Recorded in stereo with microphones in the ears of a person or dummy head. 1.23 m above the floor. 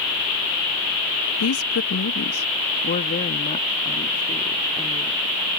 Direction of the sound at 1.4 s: 75° left (ahead or behind).